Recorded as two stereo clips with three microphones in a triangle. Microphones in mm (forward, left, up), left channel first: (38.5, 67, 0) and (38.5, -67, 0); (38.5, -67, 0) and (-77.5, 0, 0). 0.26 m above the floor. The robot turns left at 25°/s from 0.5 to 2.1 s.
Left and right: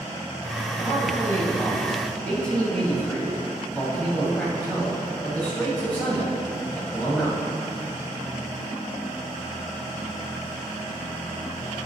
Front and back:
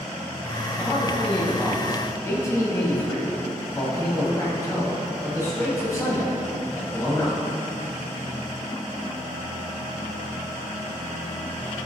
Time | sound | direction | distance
0.8 | a man speaking | 45° left | 1.8 m